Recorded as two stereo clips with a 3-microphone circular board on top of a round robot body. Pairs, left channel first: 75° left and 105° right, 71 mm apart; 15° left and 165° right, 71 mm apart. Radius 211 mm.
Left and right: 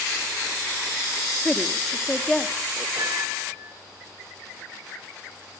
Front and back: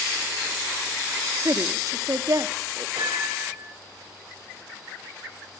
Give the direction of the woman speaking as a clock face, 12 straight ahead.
7 o'clock.